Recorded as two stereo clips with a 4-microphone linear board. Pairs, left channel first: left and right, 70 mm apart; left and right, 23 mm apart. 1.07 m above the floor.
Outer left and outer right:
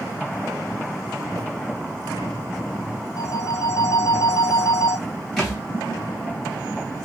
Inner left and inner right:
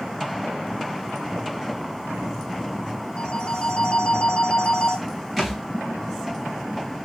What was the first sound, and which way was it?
A phone ringing, 55° left (ahead or behind).